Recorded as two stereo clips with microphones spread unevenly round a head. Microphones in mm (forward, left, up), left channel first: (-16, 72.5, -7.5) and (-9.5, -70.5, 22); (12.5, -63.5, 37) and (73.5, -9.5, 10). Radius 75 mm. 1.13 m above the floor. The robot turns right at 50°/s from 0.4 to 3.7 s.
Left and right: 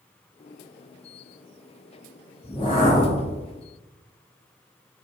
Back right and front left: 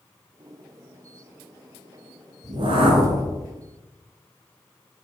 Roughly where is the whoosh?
Ahead left.